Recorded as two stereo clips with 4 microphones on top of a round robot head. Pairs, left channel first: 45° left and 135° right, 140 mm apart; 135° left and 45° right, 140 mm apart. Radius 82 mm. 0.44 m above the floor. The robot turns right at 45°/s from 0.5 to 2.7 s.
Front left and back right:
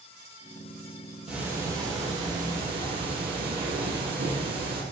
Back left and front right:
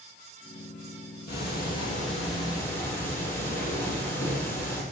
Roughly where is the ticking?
Behind left.